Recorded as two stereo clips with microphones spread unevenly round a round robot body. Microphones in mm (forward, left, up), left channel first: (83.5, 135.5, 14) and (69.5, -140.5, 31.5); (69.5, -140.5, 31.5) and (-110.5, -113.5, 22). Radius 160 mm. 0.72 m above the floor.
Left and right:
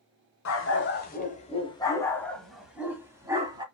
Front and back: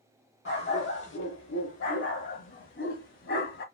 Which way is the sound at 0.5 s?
45° left.